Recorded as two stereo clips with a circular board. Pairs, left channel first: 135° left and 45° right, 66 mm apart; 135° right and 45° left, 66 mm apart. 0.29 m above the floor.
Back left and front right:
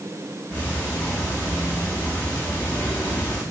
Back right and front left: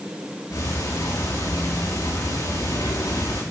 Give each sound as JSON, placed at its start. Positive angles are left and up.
{"t": 0.5, "sound": "ticking", "azimuth_deg": -160, "distance_m": 8.5}